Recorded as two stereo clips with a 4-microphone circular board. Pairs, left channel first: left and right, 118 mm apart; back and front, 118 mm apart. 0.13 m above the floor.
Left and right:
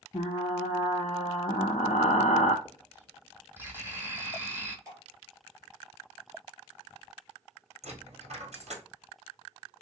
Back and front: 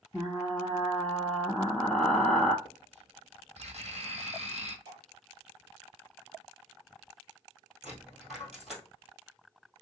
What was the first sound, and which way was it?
Frying, 95° left.